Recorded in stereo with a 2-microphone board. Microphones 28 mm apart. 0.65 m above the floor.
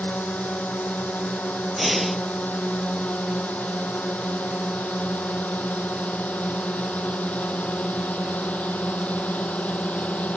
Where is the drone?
75° left (ahead or behind); by 10.4 s 60° left (ahead or behind).